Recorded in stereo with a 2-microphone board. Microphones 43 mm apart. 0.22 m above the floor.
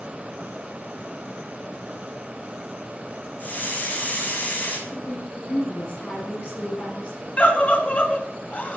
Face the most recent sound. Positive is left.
turn(degrees=35)  # may be behind; listen again after turning